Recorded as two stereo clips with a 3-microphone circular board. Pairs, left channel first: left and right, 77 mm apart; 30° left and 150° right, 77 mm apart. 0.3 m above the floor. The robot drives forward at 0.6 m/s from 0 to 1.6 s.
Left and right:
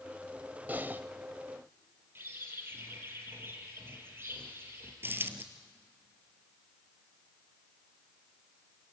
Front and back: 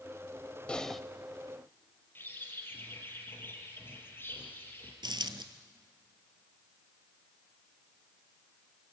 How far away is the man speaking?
No man speaking in this recording.